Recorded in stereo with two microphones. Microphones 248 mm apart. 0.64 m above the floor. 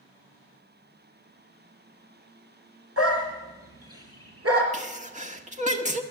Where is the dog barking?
80° right, 2.5 m; by 4.6 s 75° right (ahead or behind), 4 m.